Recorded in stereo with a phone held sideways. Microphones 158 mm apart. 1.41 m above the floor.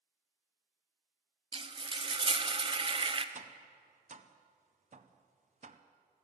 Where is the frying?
35° right (ahead or behind), 0.5 m.